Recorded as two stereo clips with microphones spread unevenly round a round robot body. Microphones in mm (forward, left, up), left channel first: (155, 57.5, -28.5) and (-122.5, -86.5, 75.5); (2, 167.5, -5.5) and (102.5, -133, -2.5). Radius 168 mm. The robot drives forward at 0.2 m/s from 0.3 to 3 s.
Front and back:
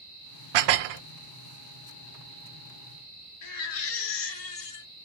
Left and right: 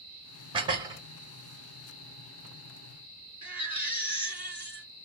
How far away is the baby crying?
About 4 m.